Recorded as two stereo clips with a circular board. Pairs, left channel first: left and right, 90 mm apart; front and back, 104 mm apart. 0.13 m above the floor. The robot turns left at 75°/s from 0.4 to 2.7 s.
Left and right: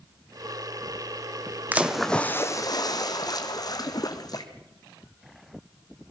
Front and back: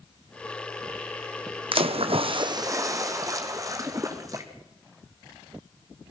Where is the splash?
160° right, 1.9 m; by 4.5 s 125° left, 1.9 m.